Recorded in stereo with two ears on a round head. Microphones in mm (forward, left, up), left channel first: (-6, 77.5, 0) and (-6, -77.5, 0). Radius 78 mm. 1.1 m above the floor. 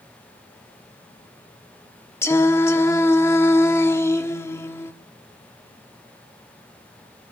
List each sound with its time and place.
2.2 s singing: 15° left (ahead or behind), 1.0 m